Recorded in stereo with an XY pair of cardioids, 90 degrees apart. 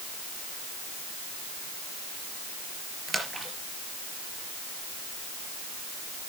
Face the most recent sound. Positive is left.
turn(degrees=-20)